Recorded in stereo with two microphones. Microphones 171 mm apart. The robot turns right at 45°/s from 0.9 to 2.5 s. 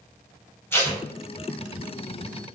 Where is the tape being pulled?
15° left (ahead or behind), 1.5 m; by 1.0 s 10° left (ahead or behind), 1.5 m.